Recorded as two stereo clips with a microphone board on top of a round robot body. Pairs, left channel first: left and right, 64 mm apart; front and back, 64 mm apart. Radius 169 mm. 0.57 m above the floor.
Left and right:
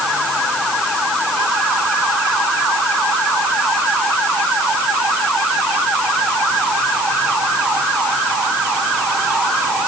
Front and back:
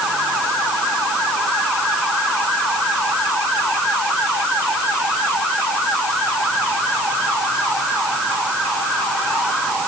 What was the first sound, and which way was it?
Only background noise.